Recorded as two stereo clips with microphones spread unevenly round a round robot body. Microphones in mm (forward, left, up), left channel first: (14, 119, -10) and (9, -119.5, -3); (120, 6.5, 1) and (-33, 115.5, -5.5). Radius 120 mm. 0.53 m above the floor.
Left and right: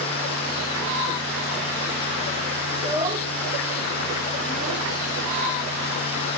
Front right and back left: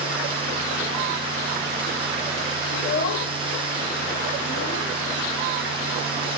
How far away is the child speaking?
About 1.1 m.